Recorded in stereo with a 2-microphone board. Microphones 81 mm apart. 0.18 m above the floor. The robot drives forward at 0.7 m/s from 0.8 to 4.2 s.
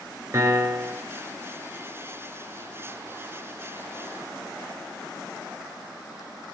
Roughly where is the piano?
Right.